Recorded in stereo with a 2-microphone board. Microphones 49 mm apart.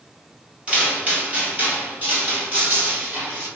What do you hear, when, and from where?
0.7 s footsteps: 20° right (ahead or behind), 1.8 m; by 3.5 s 45° right (ahead or behind), 2.5 m